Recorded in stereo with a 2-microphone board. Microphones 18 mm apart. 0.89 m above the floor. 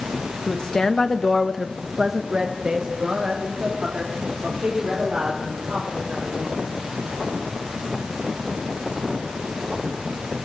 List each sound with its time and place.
0.5 s a woman speaking: 40° left (ahead or behind), 1.1 m; by 6.6 s 65° right (ahead or behind), 4 m